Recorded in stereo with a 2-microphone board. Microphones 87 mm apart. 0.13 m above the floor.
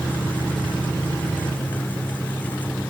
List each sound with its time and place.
Only background noise.